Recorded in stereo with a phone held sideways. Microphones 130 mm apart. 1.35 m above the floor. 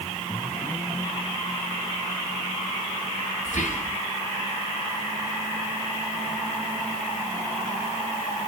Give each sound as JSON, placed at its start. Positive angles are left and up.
{"t": 3.5, "sound": "whispering", "side_deg": 70, "distance_m": 1.1}